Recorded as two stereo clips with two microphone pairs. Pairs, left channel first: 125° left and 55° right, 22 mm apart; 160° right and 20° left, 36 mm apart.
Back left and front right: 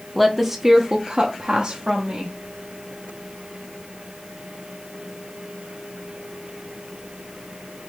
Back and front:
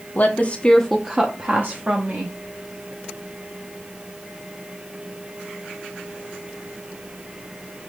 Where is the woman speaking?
150° right, 0.6 m; by 2.4 s 10° right, 1.2 m.